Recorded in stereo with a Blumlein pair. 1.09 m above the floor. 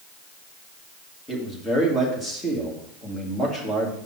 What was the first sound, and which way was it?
A man speaking, 10° left.